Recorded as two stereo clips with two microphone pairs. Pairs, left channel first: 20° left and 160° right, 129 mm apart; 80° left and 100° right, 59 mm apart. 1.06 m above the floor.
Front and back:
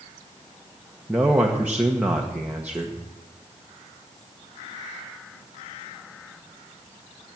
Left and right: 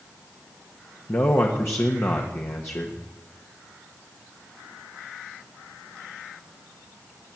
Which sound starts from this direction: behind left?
A man speaking, at 1.1 s.